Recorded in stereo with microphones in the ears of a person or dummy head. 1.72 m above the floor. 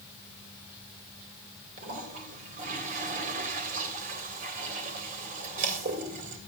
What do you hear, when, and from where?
1.8 s a toilet flushing: 45° right (ahead or behind), 2.5 m